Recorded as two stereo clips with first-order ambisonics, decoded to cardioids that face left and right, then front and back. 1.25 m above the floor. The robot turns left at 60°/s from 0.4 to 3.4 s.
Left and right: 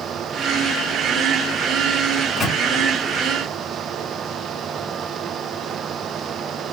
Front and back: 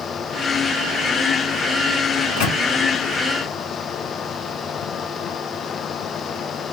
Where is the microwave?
25° left, 1.0 m; by 2.6 s straight ahead, 1.0 m.